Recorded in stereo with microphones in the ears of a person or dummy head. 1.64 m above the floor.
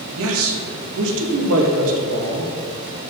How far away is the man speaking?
About 1.6 m.